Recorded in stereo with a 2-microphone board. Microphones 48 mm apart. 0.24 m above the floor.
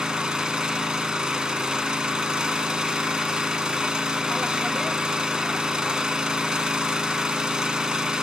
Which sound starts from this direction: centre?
An engine running, at 0.0 s.